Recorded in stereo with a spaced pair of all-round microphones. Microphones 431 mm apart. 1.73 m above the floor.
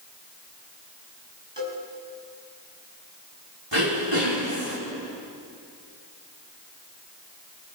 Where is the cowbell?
75° right (ahead or behind), 5.5 m.